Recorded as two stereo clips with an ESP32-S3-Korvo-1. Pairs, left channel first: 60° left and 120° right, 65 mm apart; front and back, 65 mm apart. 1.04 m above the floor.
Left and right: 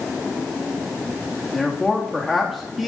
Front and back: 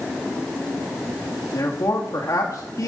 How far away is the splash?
I don't hear a splash.